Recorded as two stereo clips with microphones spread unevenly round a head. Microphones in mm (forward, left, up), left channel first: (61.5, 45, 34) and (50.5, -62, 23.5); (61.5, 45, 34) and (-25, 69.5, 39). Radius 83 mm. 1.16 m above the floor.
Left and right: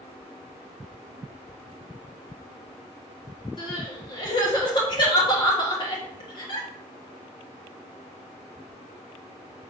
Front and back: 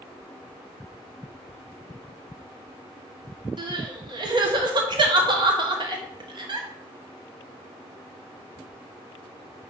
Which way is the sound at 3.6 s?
135° left.